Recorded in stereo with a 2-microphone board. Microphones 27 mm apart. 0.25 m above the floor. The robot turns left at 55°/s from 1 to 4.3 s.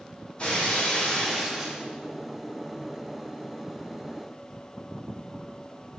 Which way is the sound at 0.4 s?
40° left.